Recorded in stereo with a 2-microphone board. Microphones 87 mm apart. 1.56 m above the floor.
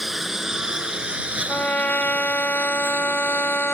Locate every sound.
0.0 s a lawn mower: centre (ahead or behind); by 3.7 s 30° right (ahead or behind)
1.5 s a trumpet: 20° left (ahead or behind)